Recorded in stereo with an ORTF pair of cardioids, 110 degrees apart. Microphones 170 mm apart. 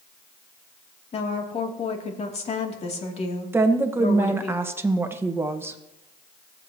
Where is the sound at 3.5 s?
15° right, 1.4 m.